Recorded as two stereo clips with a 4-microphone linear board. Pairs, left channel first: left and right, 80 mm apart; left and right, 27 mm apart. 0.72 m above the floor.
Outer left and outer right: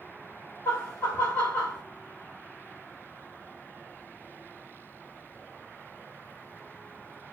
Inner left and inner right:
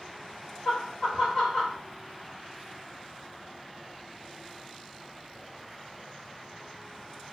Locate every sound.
0.7 s laughter: 25° left (ahead or behind), 1.7 m